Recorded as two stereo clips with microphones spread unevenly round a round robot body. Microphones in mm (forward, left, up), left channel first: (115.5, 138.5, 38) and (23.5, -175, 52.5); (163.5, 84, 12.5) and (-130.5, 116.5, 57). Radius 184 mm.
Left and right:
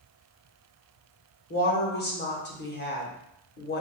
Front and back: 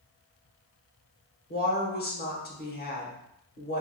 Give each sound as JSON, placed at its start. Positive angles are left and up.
{"t": 1.5, "sound": "a woman speaking", "azimuth_deg": 25, "distance_m": 1.1}